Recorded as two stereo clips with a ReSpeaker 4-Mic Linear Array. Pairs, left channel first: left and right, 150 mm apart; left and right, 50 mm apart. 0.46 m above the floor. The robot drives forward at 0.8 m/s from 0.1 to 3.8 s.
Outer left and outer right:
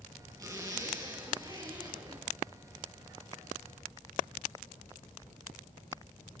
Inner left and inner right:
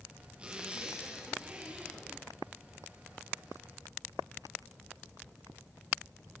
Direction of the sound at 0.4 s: 25° right (ahead or behind).